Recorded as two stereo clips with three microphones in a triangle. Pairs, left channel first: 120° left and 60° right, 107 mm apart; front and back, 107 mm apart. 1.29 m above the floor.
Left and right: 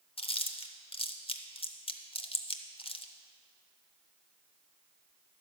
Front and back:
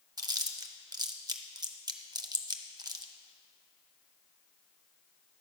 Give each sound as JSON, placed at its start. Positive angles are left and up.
{"t": 0.2, "sound": "chewing", "azimuth_deg": 135, "distance_m": 0.6}